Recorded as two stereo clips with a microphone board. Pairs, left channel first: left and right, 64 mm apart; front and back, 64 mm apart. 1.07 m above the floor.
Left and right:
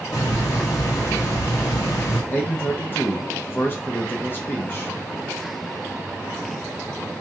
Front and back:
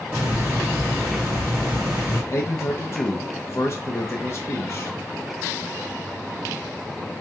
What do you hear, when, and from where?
0.1 s a hiss: 115° left, 1.4 m
2.3 s a man speaking: 40° left, 0.5 m